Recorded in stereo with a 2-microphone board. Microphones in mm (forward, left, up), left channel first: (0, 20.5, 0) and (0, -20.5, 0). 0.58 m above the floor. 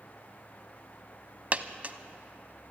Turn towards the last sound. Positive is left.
turn(degrees=-35)  # may be behind; listen again after turning